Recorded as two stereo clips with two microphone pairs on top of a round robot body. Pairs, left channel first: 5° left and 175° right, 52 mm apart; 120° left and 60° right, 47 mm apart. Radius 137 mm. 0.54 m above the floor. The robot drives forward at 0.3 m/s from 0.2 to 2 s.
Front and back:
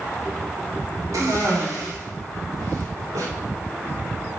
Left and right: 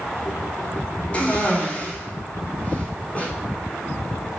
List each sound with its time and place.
1.1 s a cough: 175° left, 1.5 m